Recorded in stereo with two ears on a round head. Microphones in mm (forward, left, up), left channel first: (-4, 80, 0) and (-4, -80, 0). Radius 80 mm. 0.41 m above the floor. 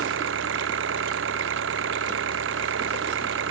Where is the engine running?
80° right.